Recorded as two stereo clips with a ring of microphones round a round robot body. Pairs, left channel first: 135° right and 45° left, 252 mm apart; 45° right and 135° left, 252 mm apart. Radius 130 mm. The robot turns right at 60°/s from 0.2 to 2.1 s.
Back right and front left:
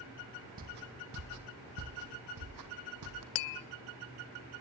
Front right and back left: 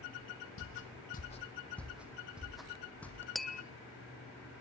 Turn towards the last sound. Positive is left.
turn(degrees=-135)